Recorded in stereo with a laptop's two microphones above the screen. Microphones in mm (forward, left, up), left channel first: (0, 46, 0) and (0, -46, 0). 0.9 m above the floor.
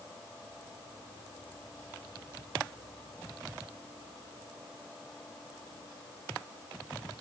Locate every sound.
Only background noise.